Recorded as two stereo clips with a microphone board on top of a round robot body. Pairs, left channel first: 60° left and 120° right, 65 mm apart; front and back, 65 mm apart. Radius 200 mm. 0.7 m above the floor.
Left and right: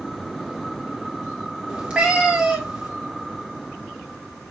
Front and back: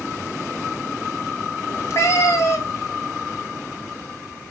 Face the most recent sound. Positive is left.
turn(degrees=-45)